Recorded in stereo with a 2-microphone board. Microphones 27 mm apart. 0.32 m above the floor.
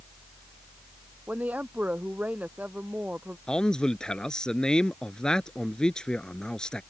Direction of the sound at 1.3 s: 80° right.